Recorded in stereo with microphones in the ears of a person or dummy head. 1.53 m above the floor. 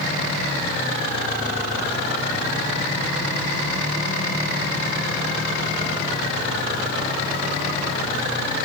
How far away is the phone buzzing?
I don't hear a phone buzzing.